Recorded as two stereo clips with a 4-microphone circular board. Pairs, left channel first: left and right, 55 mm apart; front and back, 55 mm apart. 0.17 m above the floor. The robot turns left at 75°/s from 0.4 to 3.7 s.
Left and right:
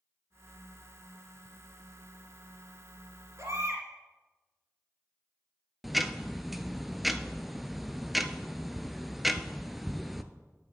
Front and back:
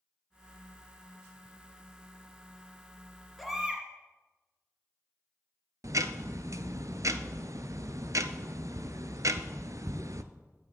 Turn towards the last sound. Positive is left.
turn(degrees=180)